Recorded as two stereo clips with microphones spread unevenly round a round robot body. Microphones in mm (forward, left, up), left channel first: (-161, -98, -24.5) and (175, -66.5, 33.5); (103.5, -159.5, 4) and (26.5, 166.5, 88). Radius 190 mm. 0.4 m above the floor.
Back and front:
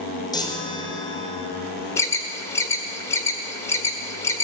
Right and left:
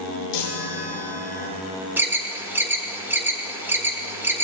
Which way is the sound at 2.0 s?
140° right.